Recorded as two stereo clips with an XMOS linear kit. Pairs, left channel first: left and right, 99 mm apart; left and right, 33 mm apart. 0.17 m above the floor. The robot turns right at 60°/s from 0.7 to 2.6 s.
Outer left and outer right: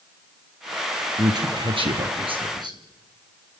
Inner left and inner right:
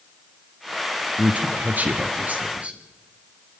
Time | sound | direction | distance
1.2 | a man speaking | 140° right | 3 m